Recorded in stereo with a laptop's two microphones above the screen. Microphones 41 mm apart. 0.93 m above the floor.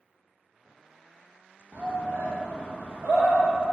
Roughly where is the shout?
Right.